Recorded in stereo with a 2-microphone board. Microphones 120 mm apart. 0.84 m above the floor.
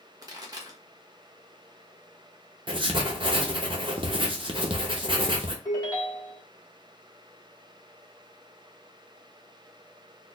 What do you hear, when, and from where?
0.2 s a pop: 30° right (ahead or behind), 1.1 m
2.7 s writing: 40° right (ahead or behind), 0.7 m
5.7 s a ringtone: 30° left (ahead or behind), 1.1 m